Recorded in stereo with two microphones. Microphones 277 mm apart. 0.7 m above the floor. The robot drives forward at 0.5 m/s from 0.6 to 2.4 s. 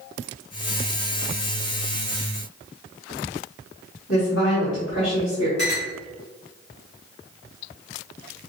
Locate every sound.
4.1 s a woman speaking: 50° left (ahead or behind), 1.6 m
5.6 s a clink: 40° right (ahead or behind), 2.0 m